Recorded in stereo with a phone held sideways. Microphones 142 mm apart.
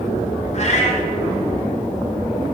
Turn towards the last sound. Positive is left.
turn(degrees=50)  # may be behind; listen again after turning